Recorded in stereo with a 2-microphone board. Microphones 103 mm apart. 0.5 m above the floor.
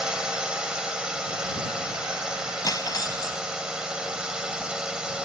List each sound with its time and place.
0.0 s a drone: 10° right (ahead or behind)
2.6 s cutlery clinking: 40° left (ahead or behind)